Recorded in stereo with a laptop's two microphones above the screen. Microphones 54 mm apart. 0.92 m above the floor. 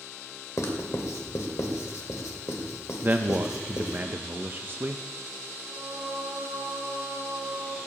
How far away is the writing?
About 1.8 m.